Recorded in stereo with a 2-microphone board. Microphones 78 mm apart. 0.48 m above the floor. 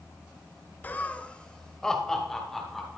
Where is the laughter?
25° left (ahead or behind), 0.7 m; by 3.0 s 5° left (ahead or behind), 3.5 m.